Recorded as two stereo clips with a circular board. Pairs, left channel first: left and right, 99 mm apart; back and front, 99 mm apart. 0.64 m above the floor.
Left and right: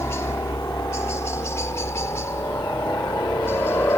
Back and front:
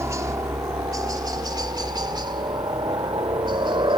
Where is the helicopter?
45° left; by 4.0 s 30° left.